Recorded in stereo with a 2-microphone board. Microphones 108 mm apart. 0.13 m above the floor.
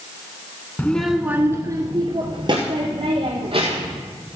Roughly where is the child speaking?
Centre.